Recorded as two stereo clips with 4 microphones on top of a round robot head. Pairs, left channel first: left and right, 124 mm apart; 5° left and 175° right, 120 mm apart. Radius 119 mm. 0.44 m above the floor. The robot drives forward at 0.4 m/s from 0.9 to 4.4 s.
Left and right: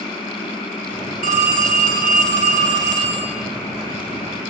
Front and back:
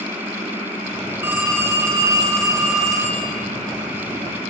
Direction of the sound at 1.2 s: 95° right.